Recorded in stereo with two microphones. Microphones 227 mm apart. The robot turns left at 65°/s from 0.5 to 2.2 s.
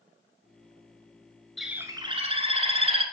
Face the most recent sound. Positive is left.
turn(degrees=-40)